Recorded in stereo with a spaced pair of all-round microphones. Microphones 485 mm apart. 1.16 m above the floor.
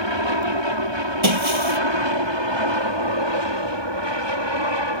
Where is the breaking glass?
75° right (ahead or behind).